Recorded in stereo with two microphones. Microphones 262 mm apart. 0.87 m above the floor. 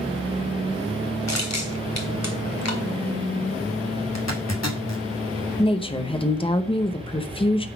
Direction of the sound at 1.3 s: 85° left.